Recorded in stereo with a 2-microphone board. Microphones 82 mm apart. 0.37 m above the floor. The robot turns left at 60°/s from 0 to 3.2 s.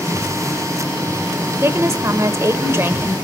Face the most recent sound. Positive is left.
turn(degrees=-150)